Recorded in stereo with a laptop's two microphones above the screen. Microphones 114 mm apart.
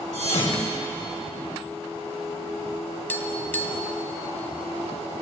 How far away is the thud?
About 2 m.